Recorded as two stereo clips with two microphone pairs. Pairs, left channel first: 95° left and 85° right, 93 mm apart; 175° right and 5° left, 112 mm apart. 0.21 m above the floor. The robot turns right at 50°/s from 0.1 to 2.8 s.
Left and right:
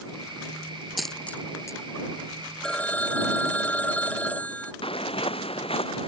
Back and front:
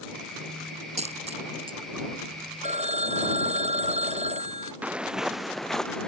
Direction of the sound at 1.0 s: 5° left.